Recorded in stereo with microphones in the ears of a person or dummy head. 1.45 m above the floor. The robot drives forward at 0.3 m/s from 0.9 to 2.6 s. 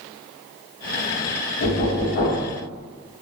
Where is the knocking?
40° left (ahead or behind), 0.6 m.